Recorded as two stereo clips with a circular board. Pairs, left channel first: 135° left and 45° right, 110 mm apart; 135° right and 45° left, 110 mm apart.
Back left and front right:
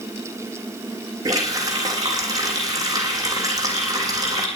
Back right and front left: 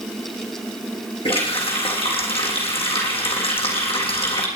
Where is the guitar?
I don't hear a guitar.